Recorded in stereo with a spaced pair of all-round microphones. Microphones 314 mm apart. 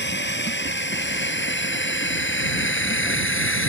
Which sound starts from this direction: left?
A drone, at 0.0 s.